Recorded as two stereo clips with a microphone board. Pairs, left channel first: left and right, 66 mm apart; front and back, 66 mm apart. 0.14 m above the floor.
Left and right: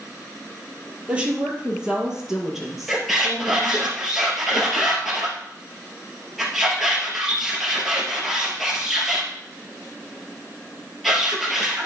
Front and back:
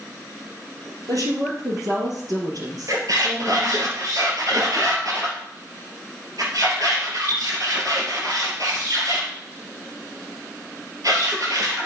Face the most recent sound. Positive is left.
turn(degrees=-175)